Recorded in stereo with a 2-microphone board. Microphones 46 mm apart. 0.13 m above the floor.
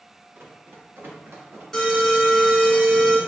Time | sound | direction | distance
0.3 | running footsteps | 55° right (ahead or behind) | 1.5 m
1.7 | an alarm | 10° left (ahead or behind) | 1.6 m